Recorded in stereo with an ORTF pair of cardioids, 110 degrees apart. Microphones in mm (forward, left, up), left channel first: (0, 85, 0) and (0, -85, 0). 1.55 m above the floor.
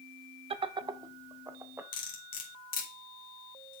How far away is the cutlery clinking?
About 2 m.